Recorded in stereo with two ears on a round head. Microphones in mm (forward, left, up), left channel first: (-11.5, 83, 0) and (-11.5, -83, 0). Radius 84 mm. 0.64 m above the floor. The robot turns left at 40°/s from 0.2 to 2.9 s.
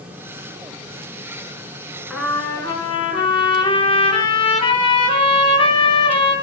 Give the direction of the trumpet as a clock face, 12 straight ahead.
6 o'clock.